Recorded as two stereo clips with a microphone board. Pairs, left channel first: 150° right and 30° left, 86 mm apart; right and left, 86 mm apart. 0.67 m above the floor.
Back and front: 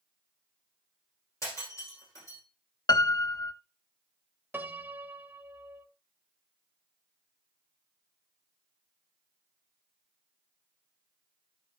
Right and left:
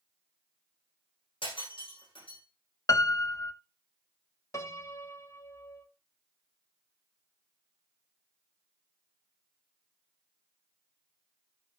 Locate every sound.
1.4 s breaking glass: 95° right, 8.5 m
2.9 s a piano: 130° right, 0.7 m
4.5 s a piano: 35° right, 1.0 m